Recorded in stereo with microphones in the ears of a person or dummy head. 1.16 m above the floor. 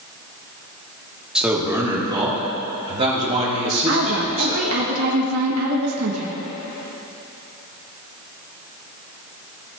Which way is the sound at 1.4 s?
5° right (ahead or behind).